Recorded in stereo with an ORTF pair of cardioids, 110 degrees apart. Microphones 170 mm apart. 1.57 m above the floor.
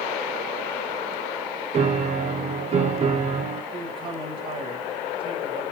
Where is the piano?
35° right, 1.2 m.